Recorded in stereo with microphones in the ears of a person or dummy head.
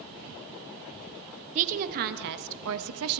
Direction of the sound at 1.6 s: 40° right (ahead or behind).